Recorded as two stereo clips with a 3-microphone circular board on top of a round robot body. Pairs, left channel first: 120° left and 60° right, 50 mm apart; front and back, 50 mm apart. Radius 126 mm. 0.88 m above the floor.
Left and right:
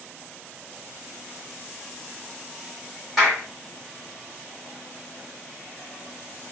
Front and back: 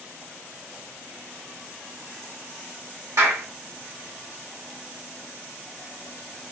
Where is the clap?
150° right, 2.5 m.